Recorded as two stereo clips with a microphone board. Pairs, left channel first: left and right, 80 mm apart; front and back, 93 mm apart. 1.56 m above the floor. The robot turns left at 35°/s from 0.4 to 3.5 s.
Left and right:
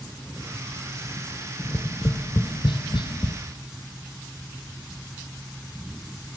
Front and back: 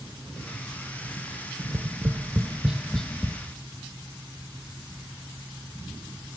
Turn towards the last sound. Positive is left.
turn(degrees=70)